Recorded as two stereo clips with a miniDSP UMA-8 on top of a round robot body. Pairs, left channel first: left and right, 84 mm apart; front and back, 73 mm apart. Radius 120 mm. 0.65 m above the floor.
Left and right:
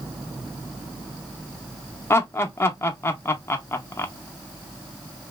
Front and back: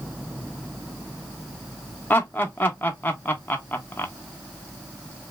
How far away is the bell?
No bell in this recording.